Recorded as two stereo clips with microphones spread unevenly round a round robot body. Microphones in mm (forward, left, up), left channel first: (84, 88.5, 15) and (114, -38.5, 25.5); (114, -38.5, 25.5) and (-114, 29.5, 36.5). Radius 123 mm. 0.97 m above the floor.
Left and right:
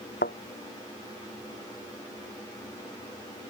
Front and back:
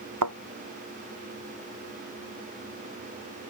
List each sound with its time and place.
0.2 s a thud: 145° left